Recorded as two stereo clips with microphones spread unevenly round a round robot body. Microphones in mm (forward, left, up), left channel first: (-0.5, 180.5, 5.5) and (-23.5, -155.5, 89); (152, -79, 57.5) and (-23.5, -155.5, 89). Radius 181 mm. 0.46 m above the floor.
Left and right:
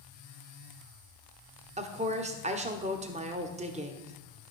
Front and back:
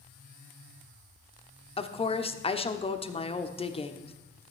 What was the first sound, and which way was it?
A woman speaking, 15° right.